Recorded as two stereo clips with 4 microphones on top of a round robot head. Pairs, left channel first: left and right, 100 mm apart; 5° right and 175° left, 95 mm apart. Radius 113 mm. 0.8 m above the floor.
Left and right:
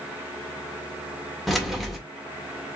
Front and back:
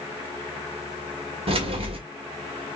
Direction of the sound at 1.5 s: Straight behind.